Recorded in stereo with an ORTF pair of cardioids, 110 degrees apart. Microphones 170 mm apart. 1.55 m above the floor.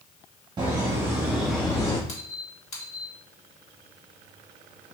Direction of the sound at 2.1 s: 40° left.